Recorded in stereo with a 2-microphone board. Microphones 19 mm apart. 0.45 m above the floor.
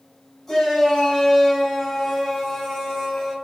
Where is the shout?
5° left (ahead or behind), 3.5 m; by 3.3 s 10° left (ahead or behind), 5.5 m.